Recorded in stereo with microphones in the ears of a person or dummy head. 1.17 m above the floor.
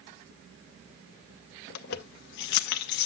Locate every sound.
1.7 s keys jangling: 60° left (ahead or behind), 0.8 m